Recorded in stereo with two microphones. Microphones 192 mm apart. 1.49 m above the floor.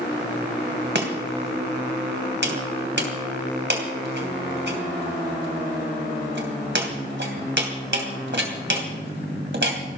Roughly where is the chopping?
Right.